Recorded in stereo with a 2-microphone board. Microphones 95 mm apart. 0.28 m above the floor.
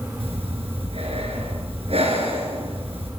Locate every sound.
0.2 s breathing: 75° right (ahead or behind), 3.5 m